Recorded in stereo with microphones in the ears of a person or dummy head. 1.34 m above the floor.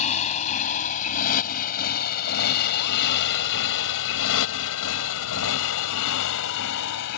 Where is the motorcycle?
40° left (ahead or behind); by 7.2 s 65° left (ahead or behind).